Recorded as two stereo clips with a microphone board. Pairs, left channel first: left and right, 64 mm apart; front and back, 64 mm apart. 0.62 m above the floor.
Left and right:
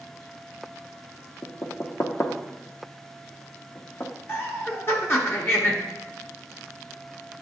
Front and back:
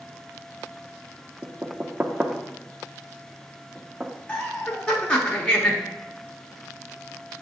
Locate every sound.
1.4 s knocking: 120° left, 0.6 m
4.3 s laughter: 65° left, 0.8 m